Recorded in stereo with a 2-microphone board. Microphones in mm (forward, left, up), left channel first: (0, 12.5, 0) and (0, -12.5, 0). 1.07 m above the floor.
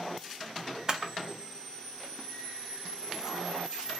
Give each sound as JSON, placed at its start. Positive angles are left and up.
{"t": 0.9, "sound": "a camera shutter", "side_deg": -25, "distance_m": 0.6}